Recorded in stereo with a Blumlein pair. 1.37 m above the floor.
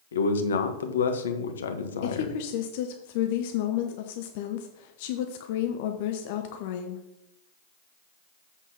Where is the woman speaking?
50° left, 0.7 m.